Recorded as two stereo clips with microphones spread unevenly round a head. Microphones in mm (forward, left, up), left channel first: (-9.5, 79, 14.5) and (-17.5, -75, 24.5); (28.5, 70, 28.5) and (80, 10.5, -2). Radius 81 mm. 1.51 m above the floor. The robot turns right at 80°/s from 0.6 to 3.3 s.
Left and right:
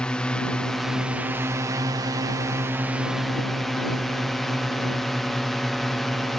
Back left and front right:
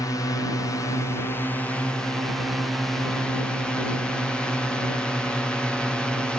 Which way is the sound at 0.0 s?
150° left.